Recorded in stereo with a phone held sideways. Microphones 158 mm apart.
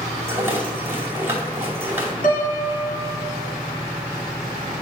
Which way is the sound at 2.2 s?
65° left (ahead or behind).